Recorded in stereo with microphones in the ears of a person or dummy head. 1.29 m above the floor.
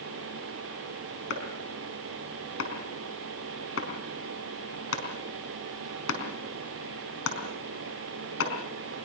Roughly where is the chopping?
Left.